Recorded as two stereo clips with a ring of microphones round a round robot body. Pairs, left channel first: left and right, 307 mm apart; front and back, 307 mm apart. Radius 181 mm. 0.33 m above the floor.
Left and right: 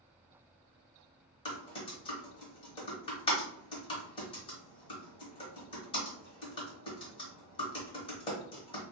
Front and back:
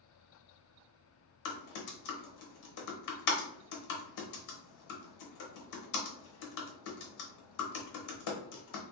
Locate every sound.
1.4 s typing on a keyboard: 15° left, 0.8 m